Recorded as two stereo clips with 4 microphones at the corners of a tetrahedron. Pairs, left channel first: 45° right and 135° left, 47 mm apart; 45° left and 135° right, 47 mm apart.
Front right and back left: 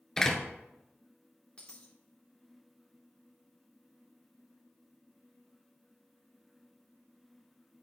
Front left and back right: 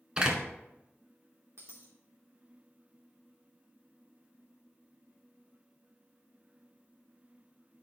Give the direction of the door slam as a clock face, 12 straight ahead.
3 o'clock.